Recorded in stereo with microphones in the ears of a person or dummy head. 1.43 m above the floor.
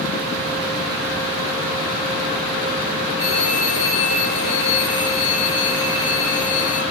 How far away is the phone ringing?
About 4.5 m.